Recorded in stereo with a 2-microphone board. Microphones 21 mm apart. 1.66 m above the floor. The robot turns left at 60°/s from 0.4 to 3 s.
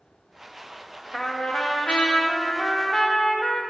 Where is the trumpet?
155° left, 1.2 m; by 3.6 s 45° left, 1.2 m.